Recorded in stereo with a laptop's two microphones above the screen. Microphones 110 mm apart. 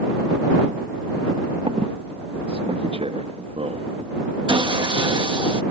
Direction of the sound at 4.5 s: 50° right (ahead or behind).